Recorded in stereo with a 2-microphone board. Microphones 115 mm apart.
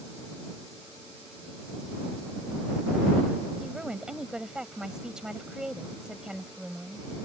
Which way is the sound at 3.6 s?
5° right (ahead or behind).